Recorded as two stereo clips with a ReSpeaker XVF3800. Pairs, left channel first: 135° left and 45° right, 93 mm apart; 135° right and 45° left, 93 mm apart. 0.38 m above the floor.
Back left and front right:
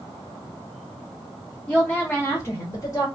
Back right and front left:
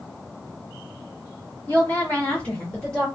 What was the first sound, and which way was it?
A woman speaking, 165° right.